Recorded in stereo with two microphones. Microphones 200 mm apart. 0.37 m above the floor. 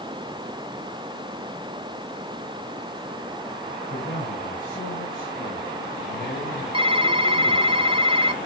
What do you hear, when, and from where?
3.9 s a man speaking: 45° left (ahead or behind), 3.5 m
6.7 s typing on a keyboard: 25° right (ahead or behind), 0.5 m